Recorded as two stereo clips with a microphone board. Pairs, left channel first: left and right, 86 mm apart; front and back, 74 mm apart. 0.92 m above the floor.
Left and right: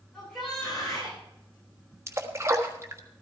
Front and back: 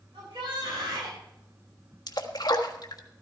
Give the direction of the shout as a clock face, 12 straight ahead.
6 o'clock.